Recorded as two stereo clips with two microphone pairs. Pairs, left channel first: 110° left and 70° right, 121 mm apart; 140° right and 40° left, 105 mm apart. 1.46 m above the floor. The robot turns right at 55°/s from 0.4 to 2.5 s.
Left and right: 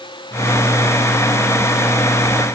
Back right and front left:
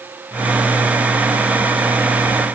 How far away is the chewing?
I don't hear chewing.